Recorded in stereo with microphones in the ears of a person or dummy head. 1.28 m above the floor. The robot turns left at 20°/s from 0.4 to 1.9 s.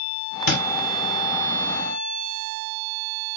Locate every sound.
0.5 s a thud: 55° left (ahead or behind), 1.3 m